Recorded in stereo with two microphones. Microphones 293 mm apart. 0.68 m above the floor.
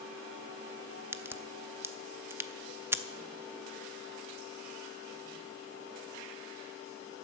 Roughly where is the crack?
Centre.